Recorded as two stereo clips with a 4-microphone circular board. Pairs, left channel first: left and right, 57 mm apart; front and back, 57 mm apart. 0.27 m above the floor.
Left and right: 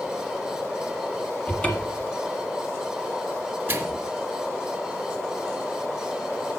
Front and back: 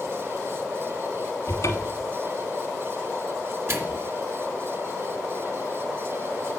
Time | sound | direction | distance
1.5 | a cupboard door | 20° left | 1.4 m
3.7 | a microwave | 140° right | 1.5 m